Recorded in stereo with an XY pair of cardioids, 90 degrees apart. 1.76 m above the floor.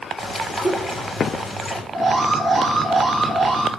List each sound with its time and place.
0.2 s a bird: 35° left, 3 m
1.9 s an alarm: 35° right, 2 m